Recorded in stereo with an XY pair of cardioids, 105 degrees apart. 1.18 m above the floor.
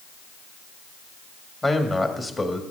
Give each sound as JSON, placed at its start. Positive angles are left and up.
{"t": 1.6, "sound": "a man speaking", "azimuth_deg": 25, "distance_m": 1.8}